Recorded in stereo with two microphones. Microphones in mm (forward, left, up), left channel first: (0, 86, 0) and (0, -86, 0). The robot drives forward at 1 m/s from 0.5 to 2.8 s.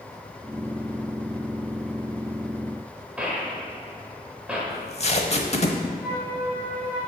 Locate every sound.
3.2 s a gunshot: 10° right (ahead or behind), 1.7 m
4.7 s tape being pulled: 40° left (ahead or behind), 0.9 m
6.0 s a flute: 10° right (ahead or behind), 3.5 m